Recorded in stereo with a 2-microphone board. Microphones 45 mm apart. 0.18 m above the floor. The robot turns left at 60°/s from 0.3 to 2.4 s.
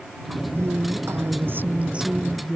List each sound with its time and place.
0.6 s a woman speaking: 65° right; by 2.6 s straight behind